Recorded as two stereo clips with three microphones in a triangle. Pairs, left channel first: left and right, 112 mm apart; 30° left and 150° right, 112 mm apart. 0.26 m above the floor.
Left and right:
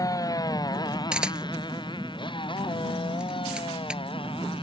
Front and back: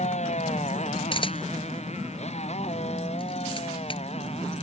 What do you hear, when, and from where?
0.0 s a motorcycle: 30° left; by 4.6 s 50° left
1.1 s a camera shutter: 5° right